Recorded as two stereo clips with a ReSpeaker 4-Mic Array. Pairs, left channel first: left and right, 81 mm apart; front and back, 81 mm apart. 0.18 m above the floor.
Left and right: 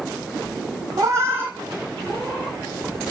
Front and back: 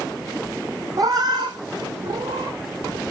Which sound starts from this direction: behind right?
A cat meowing, at 1.0 s.